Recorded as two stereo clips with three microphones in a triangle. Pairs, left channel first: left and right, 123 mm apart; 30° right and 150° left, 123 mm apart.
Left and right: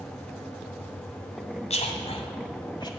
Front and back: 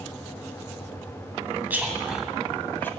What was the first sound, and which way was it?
A man speaking, 75° left.